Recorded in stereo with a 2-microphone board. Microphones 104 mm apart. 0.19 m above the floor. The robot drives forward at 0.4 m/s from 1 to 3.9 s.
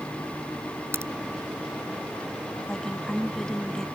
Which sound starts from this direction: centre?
A woman speaking, at 2.7 s.